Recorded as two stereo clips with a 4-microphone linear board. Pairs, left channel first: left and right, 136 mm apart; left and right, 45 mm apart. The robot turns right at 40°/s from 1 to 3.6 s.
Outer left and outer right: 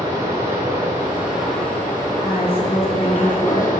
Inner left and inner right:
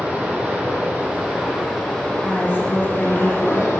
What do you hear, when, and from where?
0.0 s running water: 20° right, 2.5 m; by 3.8 s 85° left, 2.5 m
2.2 s a woman speaking: 75° left, 2.0 m; by 3.7 s 130° left, 2.0 m